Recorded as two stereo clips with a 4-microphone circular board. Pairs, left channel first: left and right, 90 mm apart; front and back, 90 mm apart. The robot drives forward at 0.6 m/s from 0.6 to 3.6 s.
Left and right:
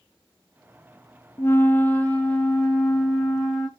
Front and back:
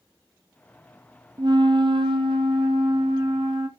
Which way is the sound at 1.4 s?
150° left.